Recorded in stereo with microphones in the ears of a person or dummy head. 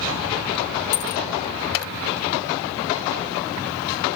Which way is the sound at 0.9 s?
55° left (ahead or behind).